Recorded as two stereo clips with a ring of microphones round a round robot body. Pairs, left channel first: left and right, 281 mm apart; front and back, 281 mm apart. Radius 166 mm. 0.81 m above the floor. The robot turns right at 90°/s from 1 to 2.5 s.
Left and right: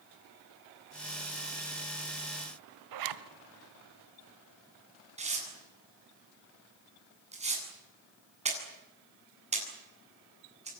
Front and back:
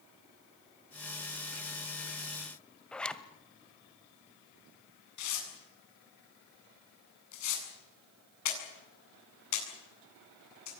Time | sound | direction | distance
2.9 | a zipper | 85° right | 1.4 m
5.2 | tearing paper | 25° right | 8 m